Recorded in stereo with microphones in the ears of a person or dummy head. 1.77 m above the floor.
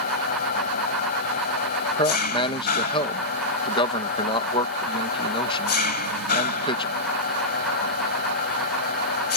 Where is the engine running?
50° left (ahead or behind).